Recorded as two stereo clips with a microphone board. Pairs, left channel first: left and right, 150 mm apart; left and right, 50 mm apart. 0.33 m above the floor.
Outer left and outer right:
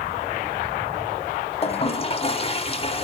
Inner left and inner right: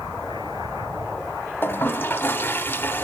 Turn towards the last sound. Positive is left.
turn(degrees=35)  # may be behind; listen again after turning